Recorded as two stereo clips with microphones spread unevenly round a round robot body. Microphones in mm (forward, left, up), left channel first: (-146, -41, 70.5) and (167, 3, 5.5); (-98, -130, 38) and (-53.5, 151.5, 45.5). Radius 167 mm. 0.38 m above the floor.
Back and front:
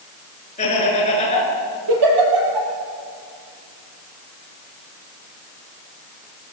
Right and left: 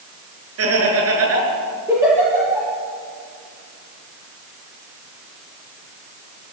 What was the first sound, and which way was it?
Laughter, 115° left.